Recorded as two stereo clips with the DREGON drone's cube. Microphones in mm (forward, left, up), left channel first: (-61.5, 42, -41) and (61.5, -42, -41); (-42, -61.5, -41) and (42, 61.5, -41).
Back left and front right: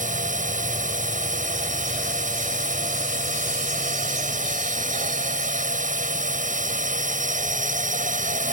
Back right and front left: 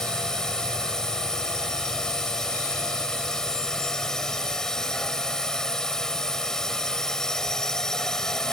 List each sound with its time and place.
0.0 s a drone: 40° right